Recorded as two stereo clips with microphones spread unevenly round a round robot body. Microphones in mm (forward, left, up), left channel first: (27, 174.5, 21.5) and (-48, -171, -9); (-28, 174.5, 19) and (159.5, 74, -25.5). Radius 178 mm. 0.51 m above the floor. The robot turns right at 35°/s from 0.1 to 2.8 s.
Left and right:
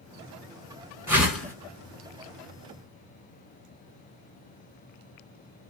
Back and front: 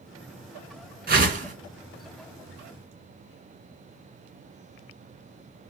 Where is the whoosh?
25° right, 1.2 m; by 1.5 s 10° right, 1.2 m.